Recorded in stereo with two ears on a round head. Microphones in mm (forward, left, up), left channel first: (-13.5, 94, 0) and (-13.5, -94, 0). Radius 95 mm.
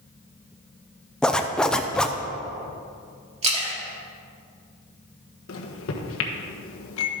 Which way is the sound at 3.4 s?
30° right (ahead or behind).